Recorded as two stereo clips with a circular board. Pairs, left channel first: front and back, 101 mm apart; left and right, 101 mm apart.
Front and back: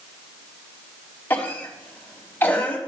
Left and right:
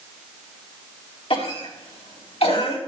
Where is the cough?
70° left, 3 m.